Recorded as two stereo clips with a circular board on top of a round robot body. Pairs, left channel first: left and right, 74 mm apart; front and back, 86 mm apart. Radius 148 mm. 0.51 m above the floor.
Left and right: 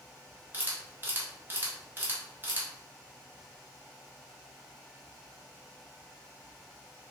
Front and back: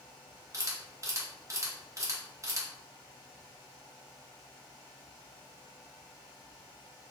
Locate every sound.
0.5 s a camera shutter: 140° right, 1.3 m